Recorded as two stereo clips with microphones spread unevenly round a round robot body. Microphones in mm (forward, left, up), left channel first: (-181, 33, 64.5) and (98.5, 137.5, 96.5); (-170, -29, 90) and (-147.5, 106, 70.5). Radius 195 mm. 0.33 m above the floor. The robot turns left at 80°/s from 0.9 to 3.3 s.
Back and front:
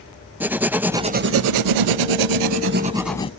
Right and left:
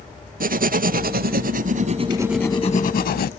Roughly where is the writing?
Left.